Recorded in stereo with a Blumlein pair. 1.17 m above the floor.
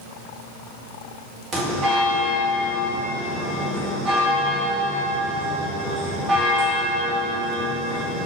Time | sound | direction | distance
1.5 | a bell | 20° right | 1.5 m